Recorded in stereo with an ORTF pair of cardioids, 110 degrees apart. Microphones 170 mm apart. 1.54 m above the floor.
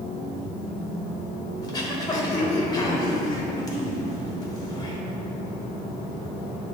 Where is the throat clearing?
25° left, 1.1 m.